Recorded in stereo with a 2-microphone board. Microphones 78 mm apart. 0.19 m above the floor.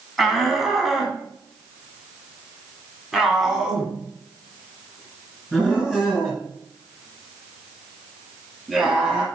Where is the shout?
Centre (ahead or behind), 1.8 m; by 9.2 s 5° right (ahead or behind), 4.5 m.